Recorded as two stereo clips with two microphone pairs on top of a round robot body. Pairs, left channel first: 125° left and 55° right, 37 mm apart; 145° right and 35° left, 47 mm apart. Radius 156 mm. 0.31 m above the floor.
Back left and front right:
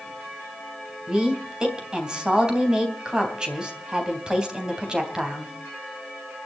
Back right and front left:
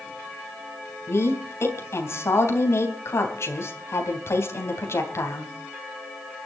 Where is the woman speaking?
125° right, 3.5 m.